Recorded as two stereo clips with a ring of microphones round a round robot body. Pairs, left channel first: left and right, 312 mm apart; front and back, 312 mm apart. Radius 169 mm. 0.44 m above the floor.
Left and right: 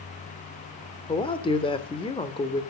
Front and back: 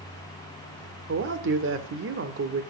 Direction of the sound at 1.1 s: 155° left.